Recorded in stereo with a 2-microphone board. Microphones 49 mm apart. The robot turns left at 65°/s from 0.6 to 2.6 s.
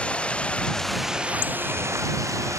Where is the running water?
20° left; by 2.6 s 110° right.